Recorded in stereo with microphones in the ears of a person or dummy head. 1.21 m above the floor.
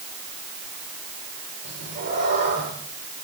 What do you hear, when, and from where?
1.6 s a cat meowing: 55° right (ahead or behind), 9.5 m